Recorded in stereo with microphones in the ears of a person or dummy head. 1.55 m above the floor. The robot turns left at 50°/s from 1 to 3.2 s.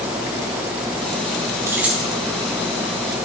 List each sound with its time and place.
1.7 s keys jangling: 15° right (ahead or behind), 1.0 m; by 2.1 s 5° left (ahead or behind), 1.0 m